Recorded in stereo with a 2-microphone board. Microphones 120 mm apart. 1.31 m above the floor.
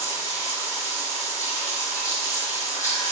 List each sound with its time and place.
0.0 s running water: 25° left (ahead or behind), 3.5 m